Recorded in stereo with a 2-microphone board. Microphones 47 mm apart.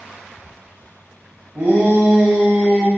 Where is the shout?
50° right (ahead or behind), 1.3 m; by 2.9 s centre (ahead or behind), 0.9 m.